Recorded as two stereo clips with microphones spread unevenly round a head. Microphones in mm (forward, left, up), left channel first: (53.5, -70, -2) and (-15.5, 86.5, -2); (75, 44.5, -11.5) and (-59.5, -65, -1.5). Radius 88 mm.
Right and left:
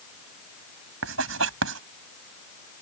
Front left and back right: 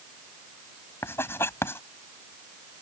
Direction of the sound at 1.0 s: 120° left.